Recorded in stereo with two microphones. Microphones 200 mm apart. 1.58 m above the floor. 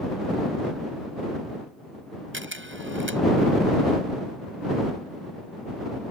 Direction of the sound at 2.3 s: 75° right (ahead or behind).